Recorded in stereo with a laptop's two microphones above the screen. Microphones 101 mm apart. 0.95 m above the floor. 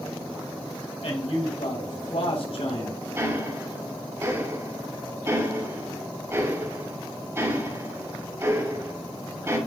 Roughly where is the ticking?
Right.